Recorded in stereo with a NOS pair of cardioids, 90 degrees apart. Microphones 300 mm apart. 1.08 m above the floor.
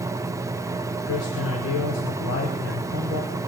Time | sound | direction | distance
0.0 | a fan | 10° right | 0.7 m
1.1 | a man speaking | 50° left | 3 m